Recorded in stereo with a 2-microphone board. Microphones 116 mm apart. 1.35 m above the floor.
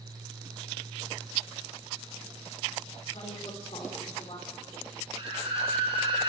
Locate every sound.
3.1 s a woman speaking: 70° left (ahead or behind), 4.5 m; by 4.9 s 55° left (ahead or behind), 4 m
5.2 s a scream: 55° right (ahead or behind), 4 m